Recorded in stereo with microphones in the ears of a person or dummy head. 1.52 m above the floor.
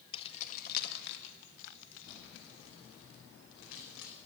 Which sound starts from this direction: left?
Keys jangling, at 0.1 s.